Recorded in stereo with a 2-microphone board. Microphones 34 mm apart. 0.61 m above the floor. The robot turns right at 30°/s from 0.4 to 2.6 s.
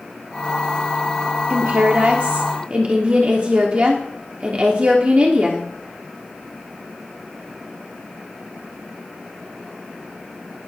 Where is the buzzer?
I don't hear a buzzer.